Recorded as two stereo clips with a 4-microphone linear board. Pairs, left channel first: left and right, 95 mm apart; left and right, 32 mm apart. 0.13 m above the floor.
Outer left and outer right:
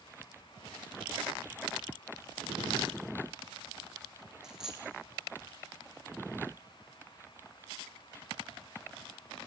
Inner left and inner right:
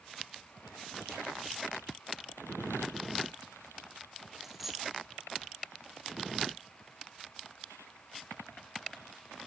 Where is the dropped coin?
5° right (ahead or behind), 4 m.